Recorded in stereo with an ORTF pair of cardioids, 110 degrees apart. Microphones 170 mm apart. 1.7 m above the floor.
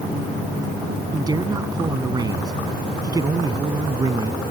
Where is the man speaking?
25° right.